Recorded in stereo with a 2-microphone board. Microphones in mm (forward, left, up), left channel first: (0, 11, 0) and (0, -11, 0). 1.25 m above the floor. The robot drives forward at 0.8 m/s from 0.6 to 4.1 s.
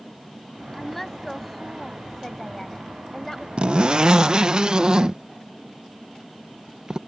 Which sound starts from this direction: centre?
A woman speaking, at 0.7 s.